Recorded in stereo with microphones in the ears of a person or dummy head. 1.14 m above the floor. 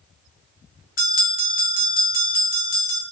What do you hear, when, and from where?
1.0 s a bell: 45° left (ahead or behind), 0.8 m